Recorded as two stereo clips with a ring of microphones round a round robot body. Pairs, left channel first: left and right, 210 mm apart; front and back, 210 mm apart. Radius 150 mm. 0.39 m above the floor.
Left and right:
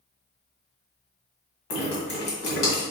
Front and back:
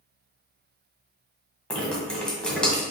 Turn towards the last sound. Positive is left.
turn(degrees=85)